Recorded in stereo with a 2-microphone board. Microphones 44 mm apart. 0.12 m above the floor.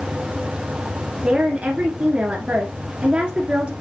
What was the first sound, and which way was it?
A woman speaking, 25° right (ahead or behind).